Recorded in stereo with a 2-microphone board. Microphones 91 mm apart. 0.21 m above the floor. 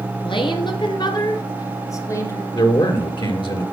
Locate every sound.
0.2 s a woman speaking: 65° left (ahead or behind), 2.5 m; by 2.4 s 25° left (ahead or behind), 2.5 m
2.5 s a man speaking: 55° left (ahead or behind), 3 m